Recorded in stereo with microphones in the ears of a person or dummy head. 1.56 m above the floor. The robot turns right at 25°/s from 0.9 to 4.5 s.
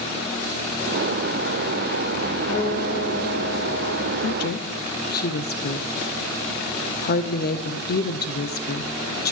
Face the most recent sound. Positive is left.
turn(degrees=45)  # may be behind; listen again after turning